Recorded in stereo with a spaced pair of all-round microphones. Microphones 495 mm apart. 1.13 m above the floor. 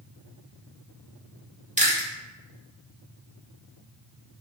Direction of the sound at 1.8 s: 15° right (ahead or behind).